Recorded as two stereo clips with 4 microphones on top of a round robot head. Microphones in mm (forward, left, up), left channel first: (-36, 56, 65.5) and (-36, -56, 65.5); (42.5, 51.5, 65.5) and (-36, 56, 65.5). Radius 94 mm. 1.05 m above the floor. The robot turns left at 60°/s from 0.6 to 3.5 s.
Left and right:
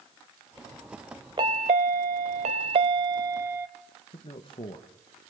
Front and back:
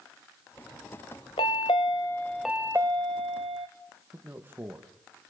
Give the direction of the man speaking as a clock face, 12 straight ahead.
8 o'clock.